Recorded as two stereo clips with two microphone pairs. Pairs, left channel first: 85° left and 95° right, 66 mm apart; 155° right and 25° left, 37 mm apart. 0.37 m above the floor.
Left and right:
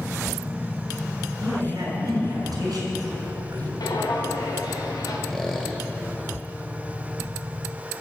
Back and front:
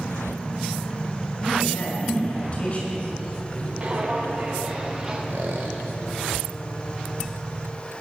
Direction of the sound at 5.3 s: Straight ahead.